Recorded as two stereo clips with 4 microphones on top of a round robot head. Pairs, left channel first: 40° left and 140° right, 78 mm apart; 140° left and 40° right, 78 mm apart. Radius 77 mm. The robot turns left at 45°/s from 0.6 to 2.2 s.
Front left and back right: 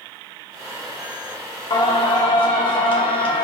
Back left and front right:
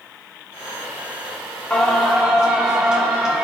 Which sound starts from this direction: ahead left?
Singing, at 1.7 s.